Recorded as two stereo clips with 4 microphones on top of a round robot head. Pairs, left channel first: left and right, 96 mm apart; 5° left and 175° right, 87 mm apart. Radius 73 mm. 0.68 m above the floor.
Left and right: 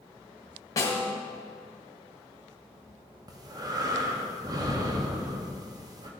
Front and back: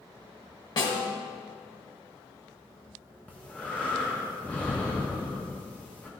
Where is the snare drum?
35° left, 1.6 m.